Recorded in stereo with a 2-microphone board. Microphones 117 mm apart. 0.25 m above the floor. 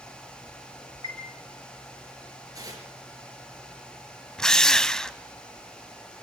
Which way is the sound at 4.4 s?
5° left (ahead or behind).